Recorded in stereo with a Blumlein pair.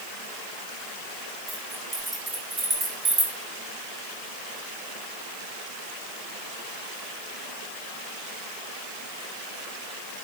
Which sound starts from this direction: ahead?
Keys jangling, at 1.5 s.